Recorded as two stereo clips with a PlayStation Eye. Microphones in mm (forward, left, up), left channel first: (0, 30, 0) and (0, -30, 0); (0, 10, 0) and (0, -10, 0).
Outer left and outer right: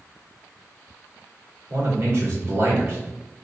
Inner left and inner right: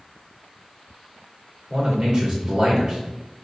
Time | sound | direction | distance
1.7 | a man speaking | 45° right (ahead or behind) | 1.7 m